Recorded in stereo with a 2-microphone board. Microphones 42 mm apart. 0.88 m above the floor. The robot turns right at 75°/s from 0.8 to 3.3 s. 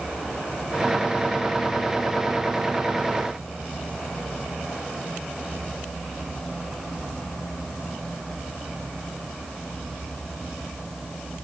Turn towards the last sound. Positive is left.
No sound to turn to.